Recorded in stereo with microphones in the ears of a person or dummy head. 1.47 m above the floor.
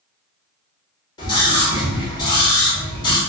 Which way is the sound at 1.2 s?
25° left (ahead or behind).